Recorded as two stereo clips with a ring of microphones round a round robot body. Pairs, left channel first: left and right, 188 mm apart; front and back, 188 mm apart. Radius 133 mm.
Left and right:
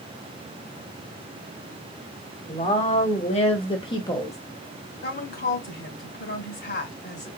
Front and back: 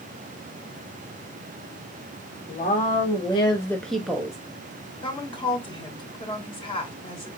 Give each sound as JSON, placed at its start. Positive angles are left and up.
{"t": 2.5, "sound": "a woman speaking", "azimuth_deg": 40, "distance_m": 1.5}
{"t": 5.0, "sound": "a woman speaking", "azimuth_deg": 60, "distance_m": 2.5}